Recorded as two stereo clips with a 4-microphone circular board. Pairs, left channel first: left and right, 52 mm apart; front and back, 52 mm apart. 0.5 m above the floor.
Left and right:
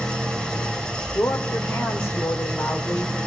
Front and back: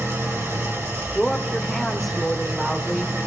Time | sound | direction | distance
0.0 | an engine running | 155° left | 2.5 m
1.1 | a woman speaking | 85° left | 1.4 m